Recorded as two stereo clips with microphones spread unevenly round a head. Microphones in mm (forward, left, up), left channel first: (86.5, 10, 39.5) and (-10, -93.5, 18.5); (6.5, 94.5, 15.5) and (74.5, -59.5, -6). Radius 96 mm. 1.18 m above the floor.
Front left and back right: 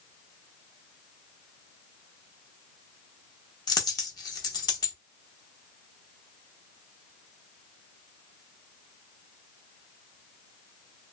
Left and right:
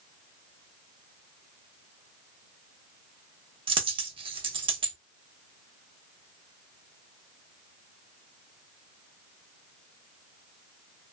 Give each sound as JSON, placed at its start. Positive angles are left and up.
{"t": 3.7, "sound": "a dropped coin", "azimuth_deg": -5, "distance_m": 0.9}